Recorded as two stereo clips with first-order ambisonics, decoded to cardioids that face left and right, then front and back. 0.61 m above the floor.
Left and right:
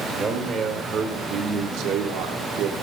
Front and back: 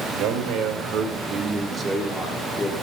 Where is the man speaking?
165° right, 2.5 m; by 2.7 s 65° right, 1.6 m.